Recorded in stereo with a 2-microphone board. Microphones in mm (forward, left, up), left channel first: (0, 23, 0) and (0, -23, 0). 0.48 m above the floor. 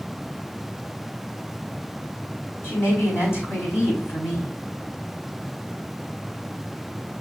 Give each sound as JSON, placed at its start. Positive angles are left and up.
{"t": 2.6, "sound": "a woman speaking", "side_deg": 65, "distance_m": 4.0}